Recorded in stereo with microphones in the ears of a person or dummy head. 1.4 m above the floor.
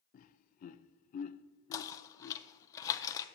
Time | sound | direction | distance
0.1 | laughter | 45° left (ahead or behind) | 0.6 m
1.7 | knocking | 20° left (ahead or behind) | 0.6 m